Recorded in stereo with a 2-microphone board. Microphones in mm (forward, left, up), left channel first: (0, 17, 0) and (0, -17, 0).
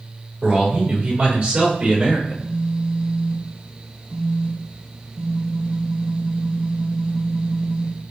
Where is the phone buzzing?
35° right (ahead or behind), 1.4 m.